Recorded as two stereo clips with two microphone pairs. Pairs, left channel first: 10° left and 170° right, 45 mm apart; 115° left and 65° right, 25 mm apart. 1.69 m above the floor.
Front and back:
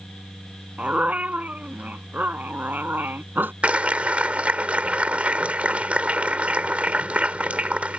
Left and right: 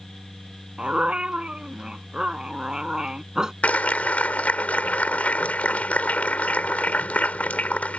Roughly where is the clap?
Behind left.